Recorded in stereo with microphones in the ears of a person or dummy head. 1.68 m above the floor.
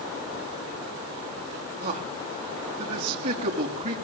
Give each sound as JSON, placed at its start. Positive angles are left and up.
{"t": 1.8, "sound": "a man speaking", "side_deg": -40, "distance_m": 4.5}